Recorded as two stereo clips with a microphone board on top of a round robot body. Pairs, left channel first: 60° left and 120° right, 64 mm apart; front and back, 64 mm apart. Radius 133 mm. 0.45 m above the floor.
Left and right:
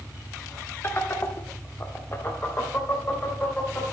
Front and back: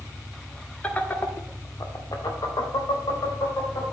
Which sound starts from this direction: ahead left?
Laughter, at 0.8 s.